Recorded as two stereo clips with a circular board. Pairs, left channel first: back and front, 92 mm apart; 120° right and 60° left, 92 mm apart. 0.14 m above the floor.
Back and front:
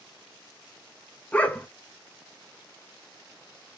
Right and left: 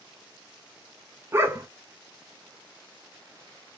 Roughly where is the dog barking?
Left.